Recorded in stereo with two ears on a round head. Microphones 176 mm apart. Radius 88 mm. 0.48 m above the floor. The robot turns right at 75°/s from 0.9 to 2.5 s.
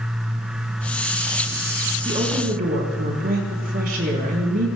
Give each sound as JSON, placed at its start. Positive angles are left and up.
{"t": 2.0, "sound": "a woman speaking", "azimuth_deg": -160, "distance_m": 5.0}